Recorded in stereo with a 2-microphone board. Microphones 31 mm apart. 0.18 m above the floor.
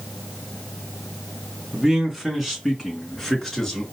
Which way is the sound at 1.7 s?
15° right (ahead or behind).